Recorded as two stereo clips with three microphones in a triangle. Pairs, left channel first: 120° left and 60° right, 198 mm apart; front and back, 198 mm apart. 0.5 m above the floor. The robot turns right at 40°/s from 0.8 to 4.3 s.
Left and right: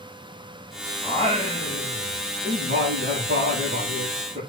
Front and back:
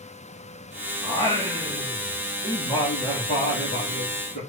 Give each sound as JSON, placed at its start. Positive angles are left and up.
{"t": 1.0, "sound": "singing", "azimuth_deg": -130, "distance_m": 7.0}